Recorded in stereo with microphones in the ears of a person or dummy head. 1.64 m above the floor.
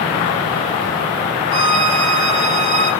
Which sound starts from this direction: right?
A violin, at 1.5 s.